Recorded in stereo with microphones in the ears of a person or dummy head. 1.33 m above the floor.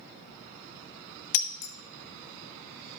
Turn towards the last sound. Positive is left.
turn(degrees=60)  # may be behind; listen again after turning